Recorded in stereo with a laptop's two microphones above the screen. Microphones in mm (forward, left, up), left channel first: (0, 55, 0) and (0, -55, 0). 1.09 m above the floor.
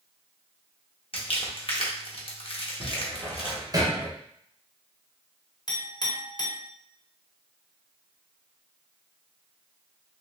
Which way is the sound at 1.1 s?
55° left (ahead or behind).